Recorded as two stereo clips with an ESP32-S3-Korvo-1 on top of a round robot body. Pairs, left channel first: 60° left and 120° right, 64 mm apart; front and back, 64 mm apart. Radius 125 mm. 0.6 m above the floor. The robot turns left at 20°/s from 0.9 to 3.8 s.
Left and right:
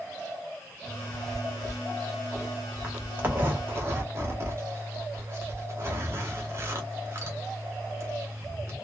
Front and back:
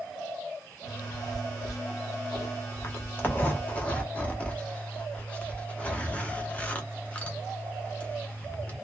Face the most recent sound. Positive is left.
turn(degrees=-70)